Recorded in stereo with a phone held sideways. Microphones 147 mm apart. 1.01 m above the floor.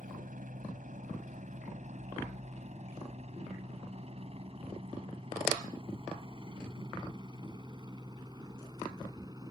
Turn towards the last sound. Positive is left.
turn(degrees=-25)  # may be behind; listen again after turning